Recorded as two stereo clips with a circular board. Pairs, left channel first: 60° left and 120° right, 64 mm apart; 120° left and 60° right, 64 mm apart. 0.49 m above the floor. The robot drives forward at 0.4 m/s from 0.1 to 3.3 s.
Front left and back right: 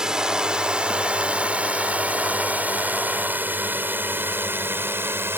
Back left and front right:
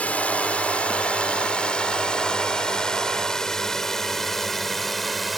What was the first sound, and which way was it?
A drone, 170° left.